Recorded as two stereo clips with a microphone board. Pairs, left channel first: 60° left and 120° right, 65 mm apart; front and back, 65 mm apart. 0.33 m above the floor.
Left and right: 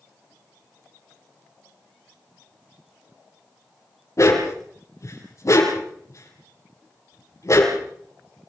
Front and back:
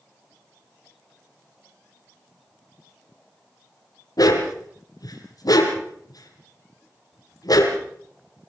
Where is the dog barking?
20° left, 4.5 m.